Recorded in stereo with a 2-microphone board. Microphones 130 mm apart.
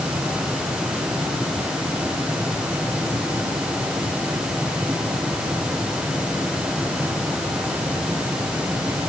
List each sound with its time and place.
Only background noise.